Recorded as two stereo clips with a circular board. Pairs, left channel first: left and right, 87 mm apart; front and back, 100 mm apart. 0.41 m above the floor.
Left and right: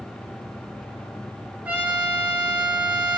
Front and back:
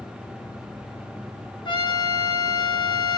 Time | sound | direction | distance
1.6 | a trumpet | 25° right | 0.7 m